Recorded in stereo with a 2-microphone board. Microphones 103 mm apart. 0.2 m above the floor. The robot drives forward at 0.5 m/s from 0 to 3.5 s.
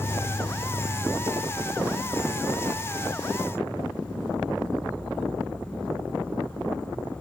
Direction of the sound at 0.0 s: 35° left (ahead or behind).